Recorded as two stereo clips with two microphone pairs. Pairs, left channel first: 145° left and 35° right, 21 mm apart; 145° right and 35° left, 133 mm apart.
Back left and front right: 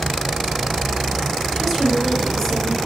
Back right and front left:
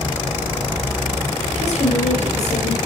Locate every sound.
1.6 s a woman speaking: 145° right, 2.0 m; by 2.8 s 160° right, 2.5 m